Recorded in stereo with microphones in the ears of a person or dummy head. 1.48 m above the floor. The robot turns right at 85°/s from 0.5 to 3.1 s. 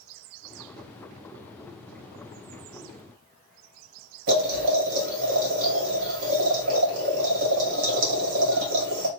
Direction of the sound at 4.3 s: 75° right (ahead or behind).